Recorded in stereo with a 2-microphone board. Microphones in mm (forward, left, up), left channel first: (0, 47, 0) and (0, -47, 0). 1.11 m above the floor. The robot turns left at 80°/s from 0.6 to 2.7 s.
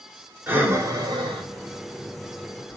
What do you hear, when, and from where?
0.5 s breathing: 20° right (ahead or behind), 1.0 m; by 2.8 s 10° left (ahead or behind), 1.0 m